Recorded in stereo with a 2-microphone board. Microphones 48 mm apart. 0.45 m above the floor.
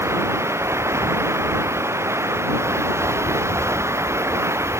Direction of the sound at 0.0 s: 70° right (ahead or behind).